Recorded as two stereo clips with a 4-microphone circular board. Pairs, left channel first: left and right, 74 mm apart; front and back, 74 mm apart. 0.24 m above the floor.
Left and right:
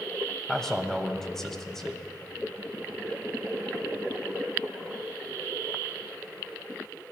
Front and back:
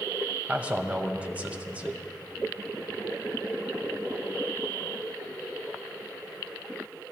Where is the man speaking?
160° left, 1.2 m.